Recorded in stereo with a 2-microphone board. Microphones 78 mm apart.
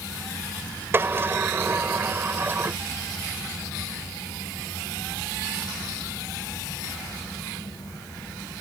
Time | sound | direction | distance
0.9 | a sliding door | 30° right (ahead or behind) | ?